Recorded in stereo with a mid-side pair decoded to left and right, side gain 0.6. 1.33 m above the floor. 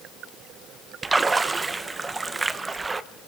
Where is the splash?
20° right, 1.1 m.